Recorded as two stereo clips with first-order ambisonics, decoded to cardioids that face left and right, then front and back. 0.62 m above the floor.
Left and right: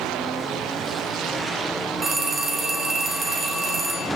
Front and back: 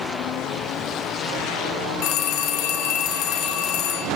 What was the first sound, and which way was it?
A phone ringing, 25° right.